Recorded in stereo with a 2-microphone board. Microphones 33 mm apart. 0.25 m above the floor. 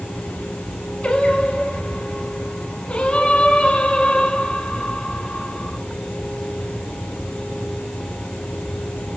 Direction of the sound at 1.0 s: 30° left (ahead or behind).